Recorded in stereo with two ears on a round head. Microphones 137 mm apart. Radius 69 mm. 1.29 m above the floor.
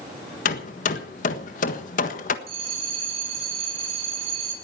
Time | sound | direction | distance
0.5 | hammering | 55° left (ahead or behind) | 1.5 m
2.5 | a bell | 40° right (ahead or behind) | 9 m